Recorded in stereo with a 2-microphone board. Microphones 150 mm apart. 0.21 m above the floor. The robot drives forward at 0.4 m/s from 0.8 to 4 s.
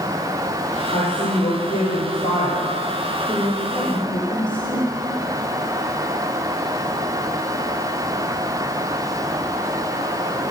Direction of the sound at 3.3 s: 30° left (ahead or behind).